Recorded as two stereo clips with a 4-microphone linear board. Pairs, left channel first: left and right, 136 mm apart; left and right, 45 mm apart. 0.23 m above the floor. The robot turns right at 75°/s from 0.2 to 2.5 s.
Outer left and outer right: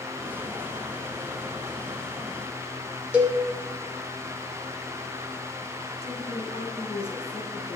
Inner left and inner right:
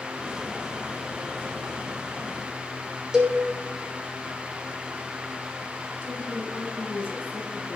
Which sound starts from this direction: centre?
A cowbell, at 3.1 s.